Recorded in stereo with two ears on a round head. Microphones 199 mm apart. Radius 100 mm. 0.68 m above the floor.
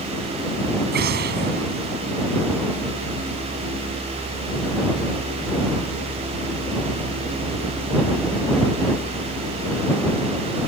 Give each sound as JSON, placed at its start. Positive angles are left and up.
{"t": 0.9, "sound": "an explosion", "side_deg": -45}